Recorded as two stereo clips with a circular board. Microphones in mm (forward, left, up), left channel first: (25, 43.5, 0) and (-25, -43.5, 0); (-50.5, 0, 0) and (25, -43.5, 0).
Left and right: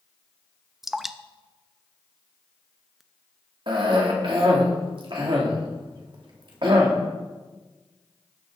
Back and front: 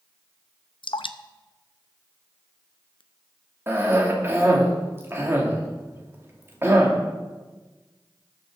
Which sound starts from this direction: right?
A cough, at 3.7 s.